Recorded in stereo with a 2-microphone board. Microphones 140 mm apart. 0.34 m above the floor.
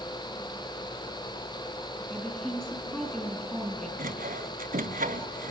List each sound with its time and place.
2.1 s a woman speaking: 5° left (ahead or behind), 8 m
4.0 s sawing: 80° right, 1.3 m